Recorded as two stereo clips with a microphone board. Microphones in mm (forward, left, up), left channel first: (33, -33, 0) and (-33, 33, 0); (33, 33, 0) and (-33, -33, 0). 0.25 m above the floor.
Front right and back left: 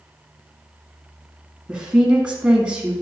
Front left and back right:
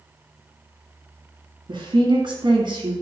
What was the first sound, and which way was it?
A woman speaking, 145° right.